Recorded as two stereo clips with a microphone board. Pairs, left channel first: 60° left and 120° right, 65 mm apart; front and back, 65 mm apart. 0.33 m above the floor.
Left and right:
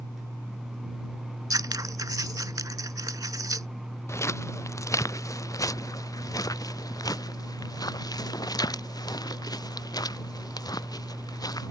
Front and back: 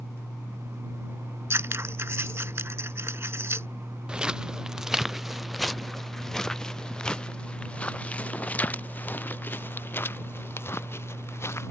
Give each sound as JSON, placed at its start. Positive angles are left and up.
{"t": 1.5, "sound": "scissors", "azimuth_deg": -130}
{"t": 4.1, "sound": "footsteps", "azimuth_deg": 105}